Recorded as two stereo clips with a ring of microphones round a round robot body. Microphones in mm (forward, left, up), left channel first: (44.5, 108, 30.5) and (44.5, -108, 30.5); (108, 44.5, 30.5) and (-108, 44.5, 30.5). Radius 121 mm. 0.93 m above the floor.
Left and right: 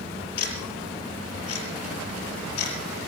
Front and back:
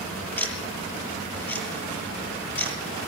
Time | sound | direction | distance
0.4 | ticking | 80° left | 6 m